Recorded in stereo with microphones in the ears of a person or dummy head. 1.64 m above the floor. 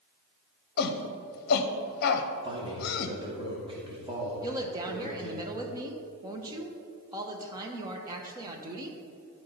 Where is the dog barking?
I don't hear a dog barking.